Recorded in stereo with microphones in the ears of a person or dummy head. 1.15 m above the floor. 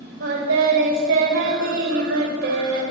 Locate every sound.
0.2 s singing: 70° right (ahead or behind), 5 m